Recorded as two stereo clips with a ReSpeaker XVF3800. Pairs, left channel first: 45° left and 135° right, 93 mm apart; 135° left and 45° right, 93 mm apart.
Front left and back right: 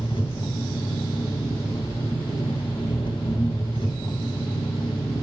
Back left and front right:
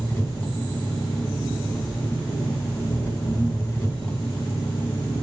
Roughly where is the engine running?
Left.